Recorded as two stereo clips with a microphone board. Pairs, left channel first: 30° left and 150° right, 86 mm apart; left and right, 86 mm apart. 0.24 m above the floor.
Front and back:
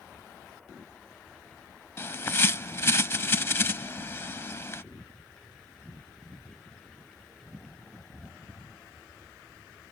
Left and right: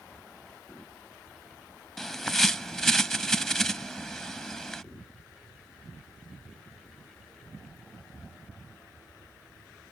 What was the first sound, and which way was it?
A bird, 10° left.